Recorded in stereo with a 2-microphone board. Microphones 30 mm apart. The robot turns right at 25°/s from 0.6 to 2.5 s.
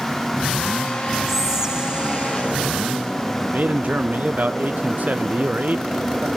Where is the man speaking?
60° right (ahead or behind), 0.6 m.